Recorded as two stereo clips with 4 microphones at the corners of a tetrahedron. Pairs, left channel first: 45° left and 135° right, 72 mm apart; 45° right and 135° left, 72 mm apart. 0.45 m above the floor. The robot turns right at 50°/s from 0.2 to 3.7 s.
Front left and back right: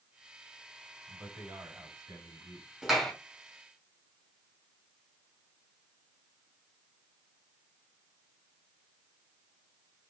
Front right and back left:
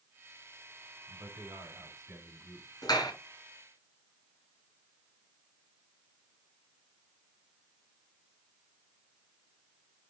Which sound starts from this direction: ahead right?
A clap, at 2.8 s.